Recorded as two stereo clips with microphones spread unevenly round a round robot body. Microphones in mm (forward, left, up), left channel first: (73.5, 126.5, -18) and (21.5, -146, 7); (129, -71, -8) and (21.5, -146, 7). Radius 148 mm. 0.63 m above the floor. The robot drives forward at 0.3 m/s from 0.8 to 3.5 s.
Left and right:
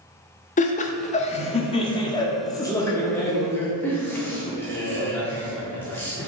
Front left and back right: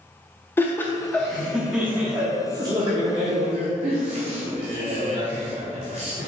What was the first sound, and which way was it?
Laughter, 80° left.